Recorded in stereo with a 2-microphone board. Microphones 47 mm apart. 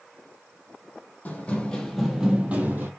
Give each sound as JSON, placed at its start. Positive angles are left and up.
{"t": 1.2, "sound": "running footsteps", "side_deg": 35, "distance_m": 1.3}